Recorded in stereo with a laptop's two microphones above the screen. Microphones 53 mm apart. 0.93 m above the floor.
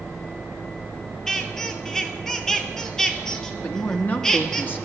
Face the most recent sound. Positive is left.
turn(degrees=35)  # may be behind; listen again after turning